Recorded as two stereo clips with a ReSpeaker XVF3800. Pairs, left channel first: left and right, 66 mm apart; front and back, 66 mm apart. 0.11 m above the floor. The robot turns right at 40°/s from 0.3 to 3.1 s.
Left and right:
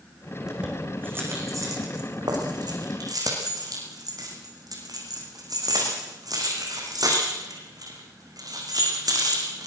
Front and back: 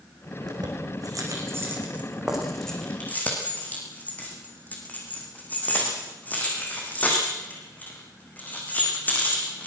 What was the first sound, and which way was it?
Keys jangling, 175° right.